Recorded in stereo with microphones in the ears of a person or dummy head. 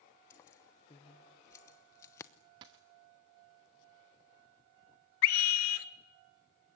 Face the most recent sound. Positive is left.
turn(degrees=70)  # may be behind; listen again after turning